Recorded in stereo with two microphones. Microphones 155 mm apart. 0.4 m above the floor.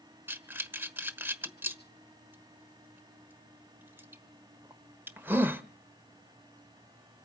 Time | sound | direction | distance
0.3 | breathing | 10° right (ahead or behind) | 1.2 m